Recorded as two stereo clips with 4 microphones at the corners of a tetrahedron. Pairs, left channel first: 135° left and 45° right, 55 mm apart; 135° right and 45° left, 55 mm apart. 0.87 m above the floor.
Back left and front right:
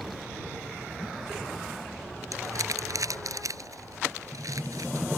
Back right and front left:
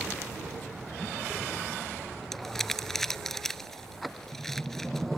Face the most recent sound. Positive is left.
turn(degrees=-55)